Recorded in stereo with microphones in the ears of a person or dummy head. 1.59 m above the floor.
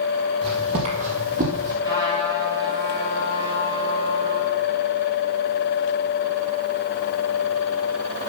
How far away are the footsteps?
About 2.5 m.